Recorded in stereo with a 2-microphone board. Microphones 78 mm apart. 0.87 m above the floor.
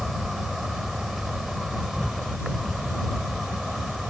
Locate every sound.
0.0 s an insect: 5° right (ahead or behind)